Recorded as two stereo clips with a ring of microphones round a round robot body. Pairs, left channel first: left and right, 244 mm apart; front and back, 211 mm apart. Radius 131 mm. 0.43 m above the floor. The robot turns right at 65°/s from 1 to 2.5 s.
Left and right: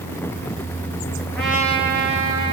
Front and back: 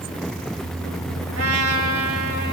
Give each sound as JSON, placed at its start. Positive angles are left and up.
{"t": 1.3, "sound": "a trumpet", "azimuth_deg": 170, "distance_m": 1.2}